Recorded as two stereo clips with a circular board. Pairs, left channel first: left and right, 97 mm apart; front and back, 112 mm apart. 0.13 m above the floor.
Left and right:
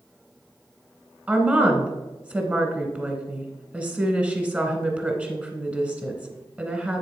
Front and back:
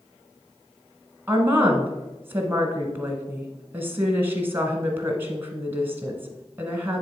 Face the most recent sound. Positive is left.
turn(degrees=-140)